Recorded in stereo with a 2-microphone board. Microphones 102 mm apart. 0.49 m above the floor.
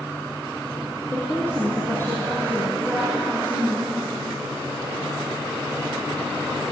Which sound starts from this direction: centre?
A woman speaking, at 1.1 s.